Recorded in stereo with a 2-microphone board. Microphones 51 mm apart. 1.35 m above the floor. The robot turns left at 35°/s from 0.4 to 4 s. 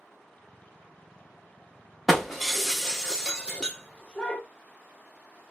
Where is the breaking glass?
Centre (ahead or behind), 0.8 m; by 4.4 s 20° left (ahead or behind), 0.8 m.